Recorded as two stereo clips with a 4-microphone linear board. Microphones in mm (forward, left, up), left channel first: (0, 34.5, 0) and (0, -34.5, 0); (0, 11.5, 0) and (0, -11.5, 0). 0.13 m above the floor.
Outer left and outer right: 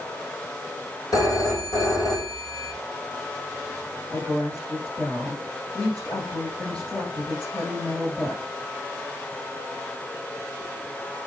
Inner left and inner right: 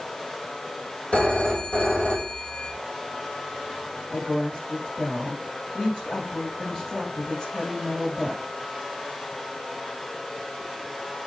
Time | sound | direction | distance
1.1 | a phone ringing | 65° left (ahead or behind) | 3.5 m
4.1 | a woman speaking | 25° left (ahead or behind) | 4.5 m